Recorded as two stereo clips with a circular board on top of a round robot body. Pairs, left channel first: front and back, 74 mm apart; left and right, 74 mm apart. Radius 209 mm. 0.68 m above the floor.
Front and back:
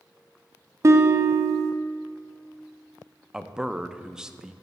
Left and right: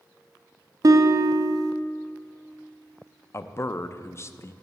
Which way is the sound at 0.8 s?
130° right.